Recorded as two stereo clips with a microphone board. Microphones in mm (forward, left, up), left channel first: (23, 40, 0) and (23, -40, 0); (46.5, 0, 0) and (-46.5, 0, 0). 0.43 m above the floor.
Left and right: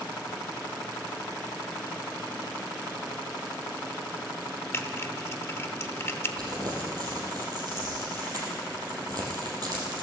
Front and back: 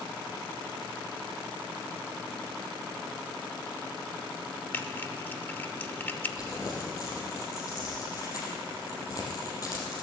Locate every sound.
4.7 s typing on a keyboard: 55° left, 0.9 m
6.4 s crumpling: 50° right, 4 m